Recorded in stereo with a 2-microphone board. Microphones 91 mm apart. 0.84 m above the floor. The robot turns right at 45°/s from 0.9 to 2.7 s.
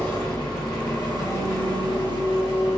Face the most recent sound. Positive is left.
turn(degrees=100)